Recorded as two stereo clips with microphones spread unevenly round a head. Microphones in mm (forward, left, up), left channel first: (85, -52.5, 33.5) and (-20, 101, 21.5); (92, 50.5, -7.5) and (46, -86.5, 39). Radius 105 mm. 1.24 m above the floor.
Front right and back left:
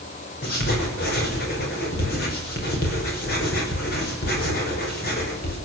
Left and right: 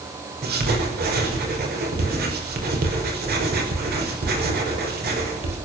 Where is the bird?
No bird in this recording.